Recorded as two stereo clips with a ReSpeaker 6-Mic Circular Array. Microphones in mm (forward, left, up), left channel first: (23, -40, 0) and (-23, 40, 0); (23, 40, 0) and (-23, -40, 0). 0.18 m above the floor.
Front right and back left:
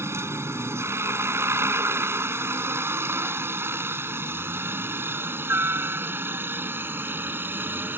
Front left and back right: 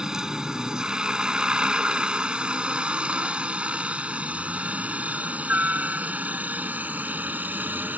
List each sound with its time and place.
0.0 s a helicopter: 160° left; by 8.0 s straight behind